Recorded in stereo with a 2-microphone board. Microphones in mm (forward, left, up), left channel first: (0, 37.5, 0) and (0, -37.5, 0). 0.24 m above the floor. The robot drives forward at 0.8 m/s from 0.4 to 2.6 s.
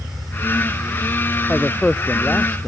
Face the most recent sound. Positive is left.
turn(degrees=15)  # may be behind; listen again after turning